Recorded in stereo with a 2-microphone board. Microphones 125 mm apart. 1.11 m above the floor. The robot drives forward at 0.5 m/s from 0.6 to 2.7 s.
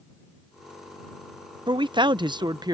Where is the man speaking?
40° right (ahead or behind); by 2.8 s 35° right (ahead or behind).